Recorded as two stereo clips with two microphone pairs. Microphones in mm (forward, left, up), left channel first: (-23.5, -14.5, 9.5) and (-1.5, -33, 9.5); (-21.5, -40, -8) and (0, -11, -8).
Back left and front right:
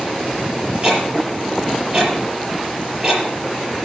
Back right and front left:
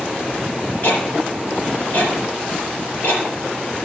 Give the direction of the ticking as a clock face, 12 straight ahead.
3 o'clock.